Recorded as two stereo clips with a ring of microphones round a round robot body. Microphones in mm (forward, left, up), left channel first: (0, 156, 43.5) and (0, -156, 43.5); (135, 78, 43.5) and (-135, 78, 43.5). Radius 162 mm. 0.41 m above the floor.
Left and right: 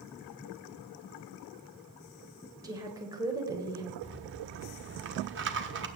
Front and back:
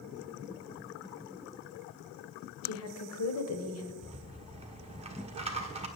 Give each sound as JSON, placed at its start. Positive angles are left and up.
{"t": 2.6, "sound": "a woman speaking", "azimuth_deg": -15, "distance_m": 1.7}
{"t": 4.0, "sound": "a rattle", "azimuth_deg": -120, "distance_m": 1.3}